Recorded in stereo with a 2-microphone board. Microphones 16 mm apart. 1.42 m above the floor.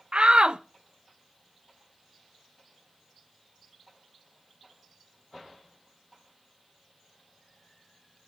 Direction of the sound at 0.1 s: 65° right (ahead or behind).